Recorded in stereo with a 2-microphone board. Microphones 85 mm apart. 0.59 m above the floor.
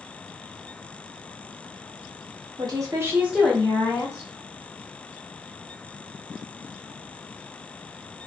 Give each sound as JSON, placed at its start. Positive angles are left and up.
{"t": 2.6, "sound": "a woman speaking", "side_deg": -55, "distance_m": 1.0}